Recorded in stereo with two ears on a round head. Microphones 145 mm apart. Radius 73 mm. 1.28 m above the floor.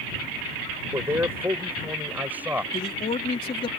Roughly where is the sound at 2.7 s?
Left.